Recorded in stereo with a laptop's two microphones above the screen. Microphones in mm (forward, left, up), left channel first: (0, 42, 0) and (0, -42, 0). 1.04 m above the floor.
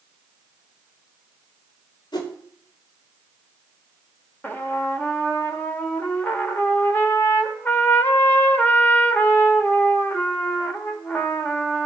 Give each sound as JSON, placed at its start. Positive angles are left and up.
{"t": 2.1, "sound": "a whoosh", "side_deg": 60, "distance_m": 2.0}
{"t": 4.4, "sound": "a trumpet", "side_deg": 20, "distance_m": 1.4}